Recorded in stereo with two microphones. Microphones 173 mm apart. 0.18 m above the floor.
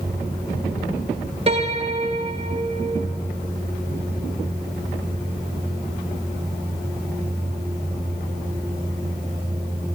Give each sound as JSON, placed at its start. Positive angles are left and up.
{"t": 1.5, "sound": "a piano", "side_deg": -35, "distance_m": 2.5}